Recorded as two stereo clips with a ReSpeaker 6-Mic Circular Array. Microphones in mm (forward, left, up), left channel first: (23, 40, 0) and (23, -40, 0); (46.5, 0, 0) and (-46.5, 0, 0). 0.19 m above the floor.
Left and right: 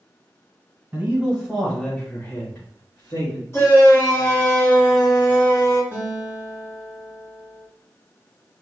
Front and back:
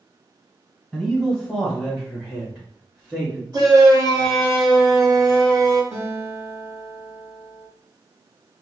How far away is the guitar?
About 1.4 m.